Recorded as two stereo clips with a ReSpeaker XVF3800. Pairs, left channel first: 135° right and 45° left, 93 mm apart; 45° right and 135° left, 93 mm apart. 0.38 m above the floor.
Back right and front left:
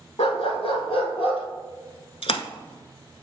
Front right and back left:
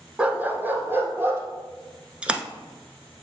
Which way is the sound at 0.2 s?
145° right.